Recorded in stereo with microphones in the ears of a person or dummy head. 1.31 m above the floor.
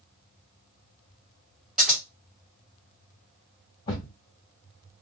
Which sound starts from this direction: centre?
Scissors, at 1.8 s.